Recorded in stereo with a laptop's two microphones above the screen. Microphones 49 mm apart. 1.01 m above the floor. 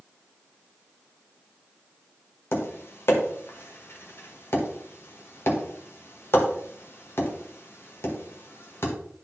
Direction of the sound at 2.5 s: 60° left (ahead or behind).